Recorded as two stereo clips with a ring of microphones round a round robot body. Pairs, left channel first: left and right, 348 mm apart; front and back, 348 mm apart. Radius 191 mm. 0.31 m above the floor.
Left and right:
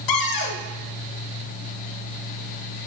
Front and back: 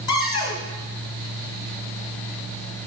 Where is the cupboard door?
75° left, 1.2 m.